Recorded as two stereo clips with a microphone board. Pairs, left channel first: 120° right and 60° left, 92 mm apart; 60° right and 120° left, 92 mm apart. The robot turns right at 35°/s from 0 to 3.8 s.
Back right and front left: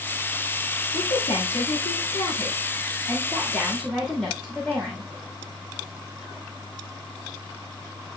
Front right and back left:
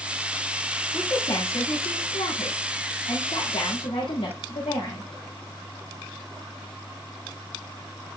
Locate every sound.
0.9 s a woman speaking: 125° right, 6 m; by 5.1 s 25° right, 6 m